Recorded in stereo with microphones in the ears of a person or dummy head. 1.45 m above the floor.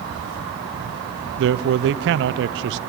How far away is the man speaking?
About 0.7 m.